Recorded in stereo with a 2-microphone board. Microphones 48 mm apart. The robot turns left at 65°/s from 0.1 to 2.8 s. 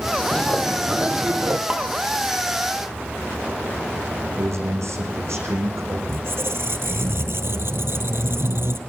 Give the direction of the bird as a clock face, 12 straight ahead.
11 o'clock.